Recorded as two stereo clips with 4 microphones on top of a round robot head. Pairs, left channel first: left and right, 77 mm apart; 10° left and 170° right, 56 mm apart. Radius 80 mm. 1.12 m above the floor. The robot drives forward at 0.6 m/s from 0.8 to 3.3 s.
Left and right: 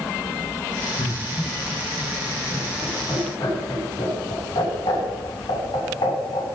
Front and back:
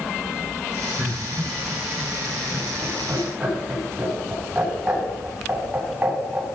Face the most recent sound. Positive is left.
turn(degrees=120)